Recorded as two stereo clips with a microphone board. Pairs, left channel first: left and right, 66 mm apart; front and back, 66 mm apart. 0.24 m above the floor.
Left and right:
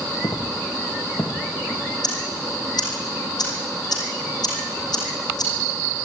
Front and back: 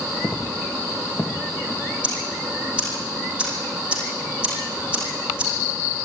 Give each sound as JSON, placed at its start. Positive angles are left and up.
{"t": 0.2, "sound": "footsteps", "azimuth_deg": 75, "distance_m": 3.0}
{"t": 2.0, "sound": "ticking", "azimuth_deg": 105, "distance_m": 5.5}